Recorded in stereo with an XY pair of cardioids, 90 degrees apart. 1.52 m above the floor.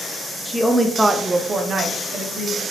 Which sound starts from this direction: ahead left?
A woman speaking, at 0.5 s.